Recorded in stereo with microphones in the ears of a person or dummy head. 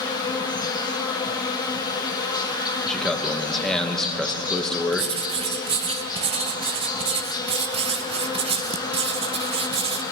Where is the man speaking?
Centre (ahead or behind), 1.0 m.